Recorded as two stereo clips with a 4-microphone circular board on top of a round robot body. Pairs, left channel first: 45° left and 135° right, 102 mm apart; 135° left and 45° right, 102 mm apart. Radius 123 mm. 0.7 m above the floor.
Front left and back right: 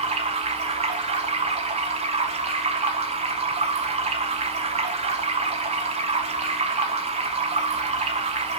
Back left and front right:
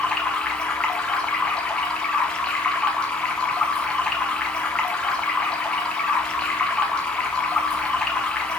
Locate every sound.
0.0 s running water: 145° right, 0.9 m